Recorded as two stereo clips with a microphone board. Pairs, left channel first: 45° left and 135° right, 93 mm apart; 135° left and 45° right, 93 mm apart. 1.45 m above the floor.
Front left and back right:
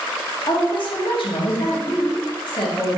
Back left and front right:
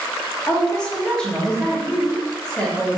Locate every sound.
0.5 s a woman speaking: 50° left, 1.0 m